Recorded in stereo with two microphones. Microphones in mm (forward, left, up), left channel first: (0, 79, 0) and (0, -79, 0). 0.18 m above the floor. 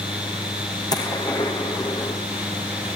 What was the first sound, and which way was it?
A gunshot, 25° left (ahead or behind).